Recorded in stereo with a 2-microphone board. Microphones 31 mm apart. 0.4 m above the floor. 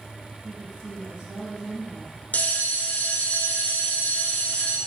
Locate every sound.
0.4 s a woman speaking: 40° right (ahead or behind), 4 m
2.3 s a bell: 70° left (ahead or behind), 0.9 m